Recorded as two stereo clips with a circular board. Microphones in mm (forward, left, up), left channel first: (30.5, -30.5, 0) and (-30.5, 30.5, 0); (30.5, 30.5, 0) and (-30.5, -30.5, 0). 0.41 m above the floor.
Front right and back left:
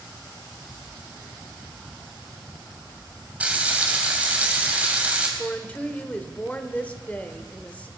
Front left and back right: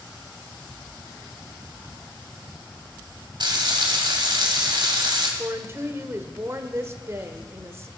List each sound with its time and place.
3.4 s frying: 155° right, 2.5 m
5.4 s a woman speaking: 105° right, 1.1 m